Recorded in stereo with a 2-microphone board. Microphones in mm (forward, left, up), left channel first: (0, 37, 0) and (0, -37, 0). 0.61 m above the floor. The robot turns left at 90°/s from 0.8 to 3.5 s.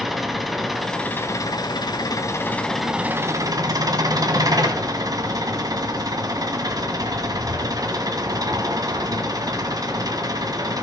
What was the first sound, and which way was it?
An engine running, straight behind.